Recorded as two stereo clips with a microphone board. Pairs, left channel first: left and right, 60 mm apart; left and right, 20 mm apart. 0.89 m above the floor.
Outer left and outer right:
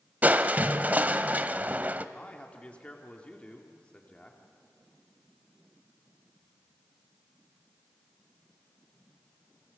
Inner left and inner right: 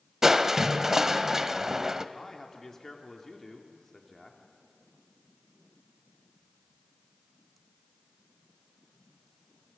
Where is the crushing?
30° right (ahead or behind), 1.0 m.